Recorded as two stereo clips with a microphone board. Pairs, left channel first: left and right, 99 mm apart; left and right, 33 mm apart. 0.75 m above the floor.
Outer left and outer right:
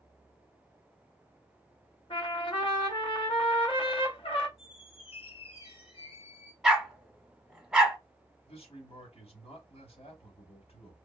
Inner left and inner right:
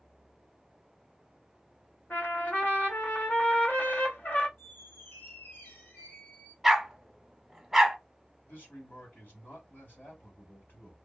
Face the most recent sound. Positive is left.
turn(degrees=75)  # may be behind; listen again after turning